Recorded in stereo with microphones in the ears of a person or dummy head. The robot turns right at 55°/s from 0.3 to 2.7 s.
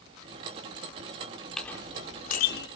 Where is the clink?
Straight ahead, 1.6 m; by 2.7 s 60° left, 1.6 m.